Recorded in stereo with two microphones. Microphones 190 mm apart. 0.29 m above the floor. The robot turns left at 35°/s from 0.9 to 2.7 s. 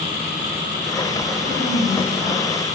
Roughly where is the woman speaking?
Behind left.